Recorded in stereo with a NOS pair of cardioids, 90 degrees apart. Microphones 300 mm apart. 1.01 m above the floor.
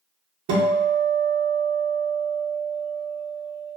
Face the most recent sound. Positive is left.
turn(degrees=-65)